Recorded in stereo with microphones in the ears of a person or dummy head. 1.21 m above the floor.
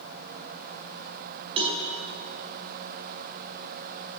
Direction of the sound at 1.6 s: 30° right (ahead or behind).